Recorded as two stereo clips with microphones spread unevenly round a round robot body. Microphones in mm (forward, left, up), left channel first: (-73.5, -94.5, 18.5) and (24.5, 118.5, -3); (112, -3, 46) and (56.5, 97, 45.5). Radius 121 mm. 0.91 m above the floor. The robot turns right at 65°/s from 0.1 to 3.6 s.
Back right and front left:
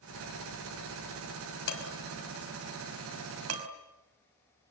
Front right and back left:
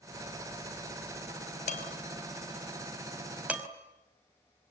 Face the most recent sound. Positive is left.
turn(degrees=50)